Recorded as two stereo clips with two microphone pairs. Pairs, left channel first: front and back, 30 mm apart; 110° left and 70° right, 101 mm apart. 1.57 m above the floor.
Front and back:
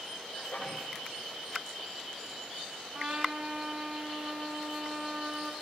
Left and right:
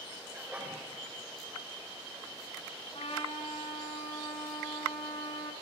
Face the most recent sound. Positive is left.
turn(degrees=125)